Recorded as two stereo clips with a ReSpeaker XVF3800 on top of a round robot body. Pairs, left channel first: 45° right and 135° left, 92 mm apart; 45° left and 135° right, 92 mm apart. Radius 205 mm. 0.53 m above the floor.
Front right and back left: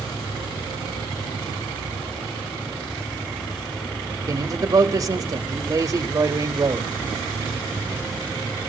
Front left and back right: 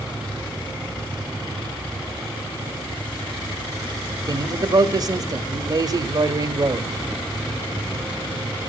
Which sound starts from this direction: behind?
A man speaking, at 4.3 s.